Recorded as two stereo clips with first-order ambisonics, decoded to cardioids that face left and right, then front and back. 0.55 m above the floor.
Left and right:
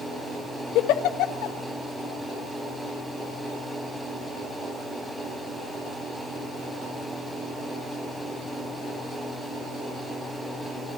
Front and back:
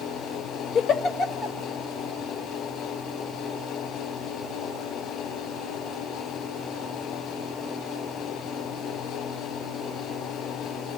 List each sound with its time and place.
0.8 s a giggle: 65° left, 1.3 m